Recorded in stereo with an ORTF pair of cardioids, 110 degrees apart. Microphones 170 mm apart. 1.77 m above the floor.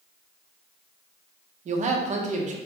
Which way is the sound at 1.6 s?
45° right.